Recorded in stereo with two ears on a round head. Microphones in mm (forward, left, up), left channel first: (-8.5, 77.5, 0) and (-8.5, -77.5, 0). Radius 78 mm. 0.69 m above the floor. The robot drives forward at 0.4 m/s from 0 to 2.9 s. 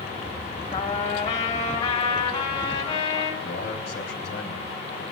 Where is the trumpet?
45° left (ahead or behind), 2.5 m; by 3.3 s 35° left (ahead or behind), 3.5 m.